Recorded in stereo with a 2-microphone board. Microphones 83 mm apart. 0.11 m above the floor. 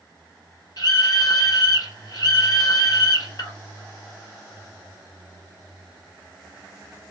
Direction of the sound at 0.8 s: 45° left (ahead or behind).